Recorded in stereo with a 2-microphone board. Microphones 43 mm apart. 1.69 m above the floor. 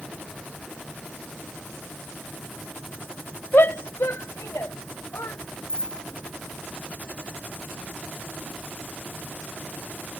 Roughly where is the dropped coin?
Centre.